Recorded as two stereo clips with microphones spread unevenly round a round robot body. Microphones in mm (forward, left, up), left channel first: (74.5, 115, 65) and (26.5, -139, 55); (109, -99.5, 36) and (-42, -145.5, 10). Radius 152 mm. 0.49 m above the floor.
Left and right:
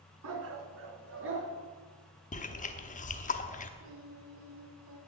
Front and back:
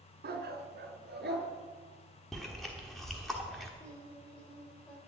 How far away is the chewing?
About 1.0 m.